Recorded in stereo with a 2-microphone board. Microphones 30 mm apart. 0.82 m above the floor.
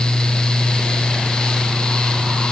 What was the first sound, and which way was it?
Only background noise.